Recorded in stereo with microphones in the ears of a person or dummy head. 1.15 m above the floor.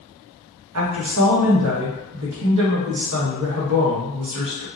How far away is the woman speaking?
About 0.9 m.